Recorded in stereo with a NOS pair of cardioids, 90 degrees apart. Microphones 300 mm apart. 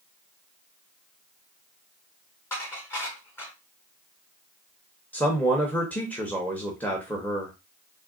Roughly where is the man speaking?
Ahead.